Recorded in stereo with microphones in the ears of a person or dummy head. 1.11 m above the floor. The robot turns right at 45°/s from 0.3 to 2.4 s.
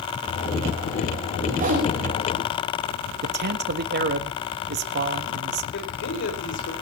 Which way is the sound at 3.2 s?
50° right (ahead or behind).